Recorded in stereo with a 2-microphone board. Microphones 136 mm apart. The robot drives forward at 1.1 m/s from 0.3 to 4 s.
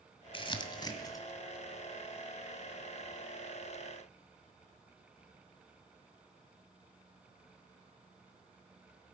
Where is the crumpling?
40° left (ahead or behind), 1.2 m; by 1.2 s 25° left (ahead or behind), 1.8 m.